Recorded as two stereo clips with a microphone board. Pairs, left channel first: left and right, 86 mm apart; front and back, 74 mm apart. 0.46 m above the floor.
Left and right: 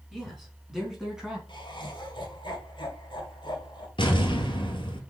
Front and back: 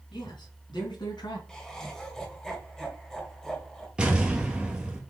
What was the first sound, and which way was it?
A man speaking, straight ahead.